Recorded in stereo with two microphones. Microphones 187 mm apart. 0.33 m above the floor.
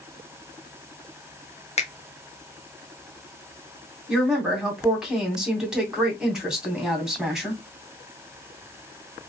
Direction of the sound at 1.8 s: 35° left (ahead or behind).